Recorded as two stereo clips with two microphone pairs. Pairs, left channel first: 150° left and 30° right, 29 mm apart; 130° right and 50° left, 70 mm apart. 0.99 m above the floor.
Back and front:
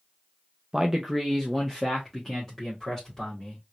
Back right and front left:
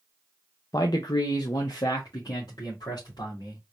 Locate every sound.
0.7 s a man speaking: 100° right, 0.6 m; by 3.6 s 135° right, 2.5 m